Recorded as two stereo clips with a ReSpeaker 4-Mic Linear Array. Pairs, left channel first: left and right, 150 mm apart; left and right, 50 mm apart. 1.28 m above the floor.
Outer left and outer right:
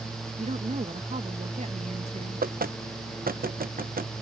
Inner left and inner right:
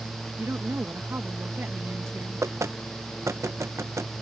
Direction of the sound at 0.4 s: 50° right (ahead or behind).